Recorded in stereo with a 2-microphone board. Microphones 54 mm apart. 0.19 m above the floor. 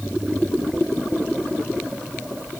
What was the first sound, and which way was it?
Only background noise.